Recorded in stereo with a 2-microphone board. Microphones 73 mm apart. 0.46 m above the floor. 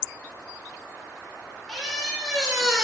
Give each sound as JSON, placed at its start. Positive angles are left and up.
{"t": 1.7, "sound": "a squeak", "side_deg": 0, "distance_m": 0.8}